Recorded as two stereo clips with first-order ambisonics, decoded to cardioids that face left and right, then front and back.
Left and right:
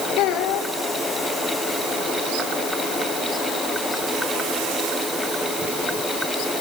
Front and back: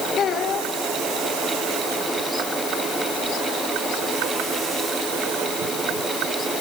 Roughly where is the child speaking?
Ahead left.